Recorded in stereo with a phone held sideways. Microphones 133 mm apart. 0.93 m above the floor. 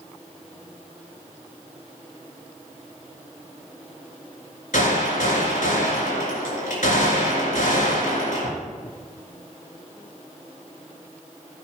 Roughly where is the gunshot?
Left.